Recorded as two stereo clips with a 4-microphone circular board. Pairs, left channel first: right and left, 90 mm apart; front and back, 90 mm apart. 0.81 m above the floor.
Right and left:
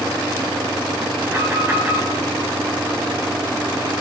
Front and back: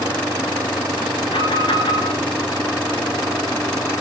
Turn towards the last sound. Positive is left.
turn(degrees=25)